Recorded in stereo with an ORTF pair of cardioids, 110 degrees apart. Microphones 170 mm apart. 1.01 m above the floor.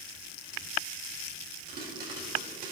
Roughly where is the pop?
Ahead right.